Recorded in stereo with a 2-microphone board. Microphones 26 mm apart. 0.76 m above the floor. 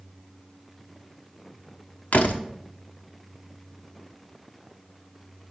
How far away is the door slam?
About 1.0 m.